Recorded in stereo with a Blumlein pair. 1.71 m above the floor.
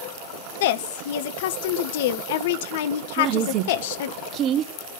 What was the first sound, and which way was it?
A woman speaking, 55° left.